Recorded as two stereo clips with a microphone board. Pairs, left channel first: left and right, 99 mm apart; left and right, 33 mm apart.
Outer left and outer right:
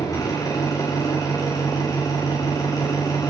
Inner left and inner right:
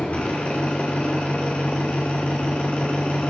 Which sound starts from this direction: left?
An engine running, at 0.0 s.